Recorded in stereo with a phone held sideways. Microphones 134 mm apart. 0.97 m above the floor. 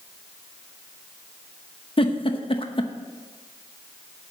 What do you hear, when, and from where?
2.0 s a giggle: 40° left (ahead or behind), 0.9 m